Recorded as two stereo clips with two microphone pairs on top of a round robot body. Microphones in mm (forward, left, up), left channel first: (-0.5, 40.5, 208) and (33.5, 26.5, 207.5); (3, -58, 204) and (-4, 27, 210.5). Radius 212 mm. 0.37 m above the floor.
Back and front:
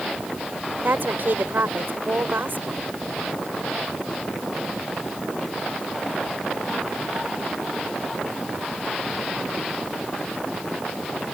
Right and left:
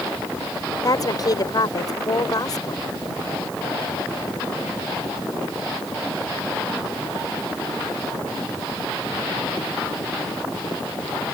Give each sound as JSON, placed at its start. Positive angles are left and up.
{"t": 0.8, "sound": "a woman speaking", "azimuth_deg": -45}